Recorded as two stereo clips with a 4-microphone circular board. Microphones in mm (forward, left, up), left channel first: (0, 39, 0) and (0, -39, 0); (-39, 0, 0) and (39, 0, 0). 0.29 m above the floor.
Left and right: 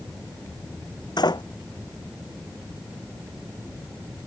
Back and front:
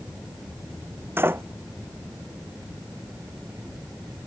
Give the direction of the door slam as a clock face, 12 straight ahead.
10 o'clock.